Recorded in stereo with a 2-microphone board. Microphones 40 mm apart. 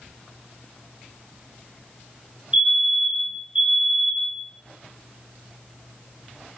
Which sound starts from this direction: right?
A fire alarm, at 2.5 s.